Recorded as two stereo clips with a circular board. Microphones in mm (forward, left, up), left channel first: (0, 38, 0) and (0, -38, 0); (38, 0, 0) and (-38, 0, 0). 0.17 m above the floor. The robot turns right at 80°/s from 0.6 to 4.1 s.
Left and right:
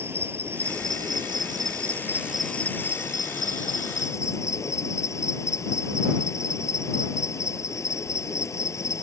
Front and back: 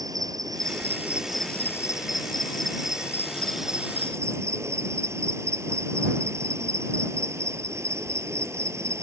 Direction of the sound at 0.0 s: 150° right.